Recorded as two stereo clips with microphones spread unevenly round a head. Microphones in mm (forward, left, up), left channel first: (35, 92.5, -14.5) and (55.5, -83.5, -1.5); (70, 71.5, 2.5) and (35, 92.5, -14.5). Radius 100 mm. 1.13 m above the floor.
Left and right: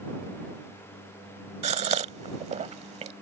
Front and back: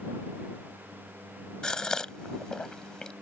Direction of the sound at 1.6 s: 60° right.